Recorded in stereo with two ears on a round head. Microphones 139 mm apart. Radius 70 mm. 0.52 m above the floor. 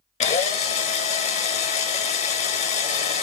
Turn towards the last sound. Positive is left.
turn(degrees=40)  # may be behind; listen again after turning